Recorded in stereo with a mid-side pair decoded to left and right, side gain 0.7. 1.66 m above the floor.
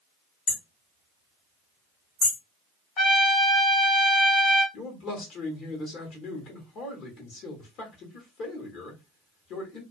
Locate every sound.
0.5 s hammering: 45° left, 1.1 m
3.0 s a trumpet: 45° left, 1.2 m
4.7 s a man speaking: 55° left, 1.1 m